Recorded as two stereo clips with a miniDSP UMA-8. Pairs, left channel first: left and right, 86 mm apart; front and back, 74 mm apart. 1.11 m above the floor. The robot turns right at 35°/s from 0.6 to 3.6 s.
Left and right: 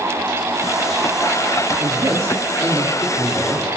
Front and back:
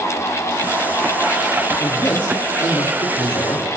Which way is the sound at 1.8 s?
65° right.